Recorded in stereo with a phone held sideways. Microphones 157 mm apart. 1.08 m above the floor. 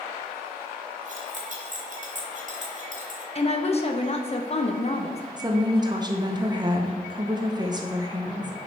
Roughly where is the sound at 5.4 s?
Right.